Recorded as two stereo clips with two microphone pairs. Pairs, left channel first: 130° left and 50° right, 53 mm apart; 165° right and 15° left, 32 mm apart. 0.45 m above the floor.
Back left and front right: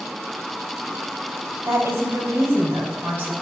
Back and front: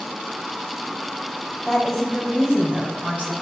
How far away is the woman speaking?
About 2.5 m.